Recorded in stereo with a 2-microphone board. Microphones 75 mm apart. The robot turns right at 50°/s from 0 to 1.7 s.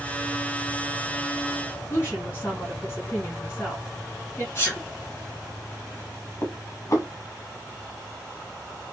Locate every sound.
1.9 s a woman speaking: 35° left (ahead or behind), 2.5 m
4.5 s a sneeze: 35° left (ahead or behind), 2.5 m
6.4 s dishes clattering: 45° left (ahead or behind), 1.4 m